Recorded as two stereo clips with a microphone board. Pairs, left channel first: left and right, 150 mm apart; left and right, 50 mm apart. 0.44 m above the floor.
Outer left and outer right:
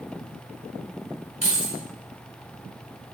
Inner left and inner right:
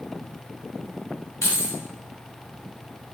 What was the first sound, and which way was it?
Keys jangling, 55° left (ahead or behind).